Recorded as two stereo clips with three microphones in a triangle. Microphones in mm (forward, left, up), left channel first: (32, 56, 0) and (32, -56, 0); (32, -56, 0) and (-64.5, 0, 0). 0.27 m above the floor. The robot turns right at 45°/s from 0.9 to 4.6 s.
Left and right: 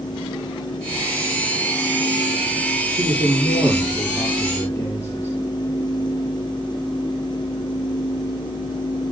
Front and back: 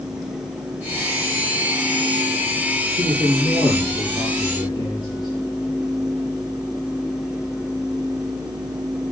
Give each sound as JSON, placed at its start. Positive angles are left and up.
{"t": 3.0, "sound": "a man speaking", "azimuth_deg": -55, "distance_m": 6.0}